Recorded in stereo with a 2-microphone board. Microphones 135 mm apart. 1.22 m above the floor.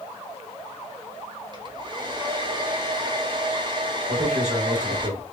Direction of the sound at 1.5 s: 35° right (ahead or behind).